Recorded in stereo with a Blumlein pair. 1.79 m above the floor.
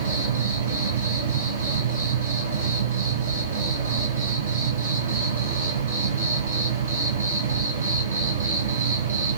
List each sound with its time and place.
0.0 s an insect: 70° right, 1.0 m